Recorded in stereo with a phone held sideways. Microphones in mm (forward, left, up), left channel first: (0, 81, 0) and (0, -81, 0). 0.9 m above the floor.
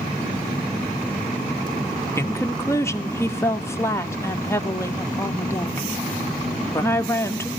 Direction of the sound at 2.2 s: 15° left (ahead or behind).